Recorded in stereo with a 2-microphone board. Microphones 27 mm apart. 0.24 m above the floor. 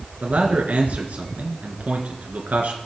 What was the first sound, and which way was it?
A man speaking, 70° right (ahead or behind).